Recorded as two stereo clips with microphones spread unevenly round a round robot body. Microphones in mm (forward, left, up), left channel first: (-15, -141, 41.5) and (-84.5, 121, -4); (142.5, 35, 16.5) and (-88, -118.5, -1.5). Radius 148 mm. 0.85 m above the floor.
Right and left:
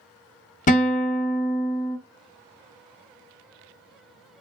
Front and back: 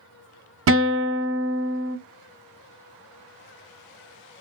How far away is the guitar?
About 0.5 m.